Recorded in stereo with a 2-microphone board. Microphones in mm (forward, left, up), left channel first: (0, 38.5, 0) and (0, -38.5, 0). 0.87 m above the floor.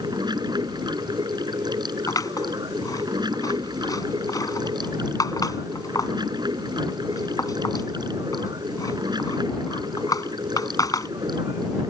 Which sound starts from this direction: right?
Running water, at 0.0 s.